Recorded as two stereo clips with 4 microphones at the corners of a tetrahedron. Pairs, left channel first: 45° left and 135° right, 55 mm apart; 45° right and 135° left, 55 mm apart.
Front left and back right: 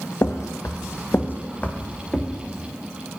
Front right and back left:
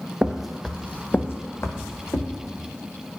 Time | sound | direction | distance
0.2 | footsteps | 60° left | 0.6 m